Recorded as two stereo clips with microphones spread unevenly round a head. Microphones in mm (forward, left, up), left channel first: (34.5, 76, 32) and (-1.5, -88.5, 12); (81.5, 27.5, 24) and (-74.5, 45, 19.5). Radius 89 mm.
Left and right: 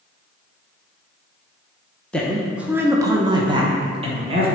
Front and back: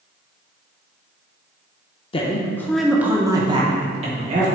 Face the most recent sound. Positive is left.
turn(degrees=-150)